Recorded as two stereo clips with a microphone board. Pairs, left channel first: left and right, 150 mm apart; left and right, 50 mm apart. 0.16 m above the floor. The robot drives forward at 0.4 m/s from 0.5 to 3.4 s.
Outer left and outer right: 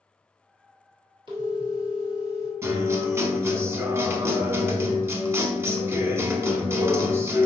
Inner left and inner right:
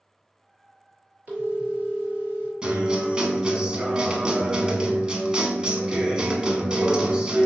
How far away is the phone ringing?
About 1.6 m.